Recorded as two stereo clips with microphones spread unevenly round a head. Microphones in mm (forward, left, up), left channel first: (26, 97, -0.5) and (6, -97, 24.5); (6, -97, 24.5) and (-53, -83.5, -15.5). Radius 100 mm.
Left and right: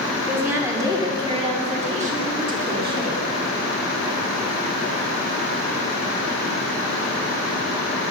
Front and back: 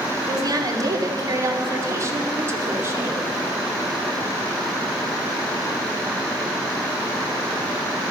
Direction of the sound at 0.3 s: Straight behind.